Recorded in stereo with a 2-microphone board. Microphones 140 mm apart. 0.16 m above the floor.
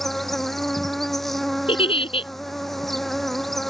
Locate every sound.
0.0 s an insect: centre (ahead or behind)
1.7 s a giggle: 40° left (ahead or behind)